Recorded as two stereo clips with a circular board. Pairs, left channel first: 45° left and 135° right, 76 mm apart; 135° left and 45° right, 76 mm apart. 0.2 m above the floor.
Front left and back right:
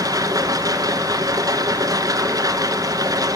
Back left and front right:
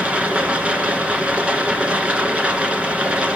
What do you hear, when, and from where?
0.0 s running water: 120° right, 1.9 m